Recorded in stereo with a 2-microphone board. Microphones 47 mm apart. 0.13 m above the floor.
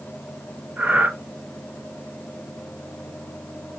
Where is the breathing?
45° right (ahead or behind), 0.8 m.